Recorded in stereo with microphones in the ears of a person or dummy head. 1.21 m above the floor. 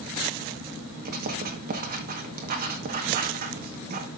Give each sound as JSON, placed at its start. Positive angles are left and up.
{"t": 1.1, "sound": "writing", "side_deg": -55, "distance_m": 1.4}